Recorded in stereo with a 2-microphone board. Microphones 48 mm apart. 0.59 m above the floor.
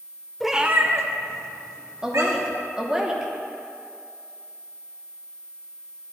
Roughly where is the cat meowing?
Centre.